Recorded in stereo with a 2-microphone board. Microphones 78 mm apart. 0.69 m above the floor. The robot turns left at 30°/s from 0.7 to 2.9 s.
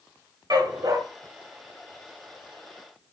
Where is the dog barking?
65° right (ahead or behind), 1.7 m; by 1.0 s 55° right (ahead or behind), 1.7 m.